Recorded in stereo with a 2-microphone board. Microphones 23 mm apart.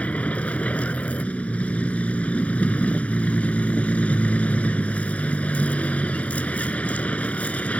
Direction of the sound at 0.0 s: 80° left.